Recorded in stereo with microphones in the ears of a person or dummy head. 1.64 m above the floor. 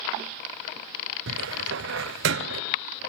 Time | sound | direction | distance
1.3 | a cupboard door | 75° right (ahead or behind) | 0.9 m